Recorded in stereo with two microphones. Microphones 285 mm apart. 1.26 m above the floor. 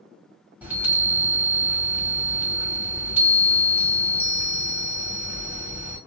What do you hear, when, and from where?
0.6 s a chime: 5° right (ahead or behind), 1.4 m